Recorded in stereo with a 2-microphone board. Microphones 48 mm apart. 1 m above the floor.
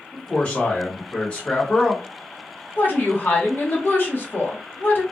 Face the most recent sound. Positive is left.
turn(degrees=45)  # may be behind; listen again after turning